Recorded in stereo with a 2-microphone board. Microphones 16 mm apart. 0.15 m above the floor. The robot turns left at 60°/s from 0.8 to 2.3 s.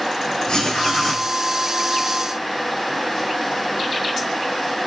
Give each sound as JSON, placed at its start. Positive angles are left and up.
{"t": 0.5, "sound": "writing", "side_deg": 70, "distance_m": 4.5}